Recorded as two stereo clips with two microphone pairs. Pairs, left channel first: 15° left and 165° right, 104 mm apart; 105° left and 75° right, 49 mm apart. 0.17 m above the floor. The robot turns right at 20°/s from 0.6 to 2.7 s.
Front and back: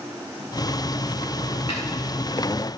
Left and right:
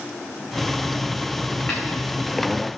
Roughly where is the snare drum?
Ahead left.